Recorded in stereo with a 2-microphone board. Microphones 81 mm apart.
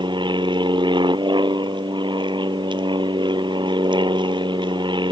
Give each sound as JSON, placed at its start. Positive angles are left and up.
{"t": 0.0, "sound": "an aircraft", "side_deg": -75}